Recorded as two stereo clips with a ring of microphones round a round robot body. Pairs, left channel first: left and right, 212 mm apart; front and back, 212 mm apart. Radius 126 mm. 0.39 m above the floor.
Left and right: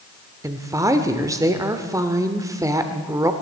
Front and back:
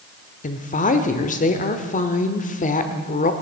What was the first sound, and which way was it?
A woman speaking, 25° right.